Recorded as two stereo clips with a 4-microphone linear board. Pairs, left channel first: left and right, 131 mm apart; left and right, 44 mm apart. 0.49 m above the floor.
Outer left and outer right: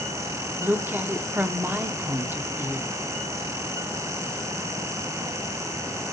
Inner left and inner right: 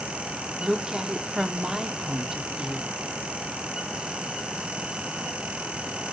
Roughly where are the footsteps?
I don't hear footsteps.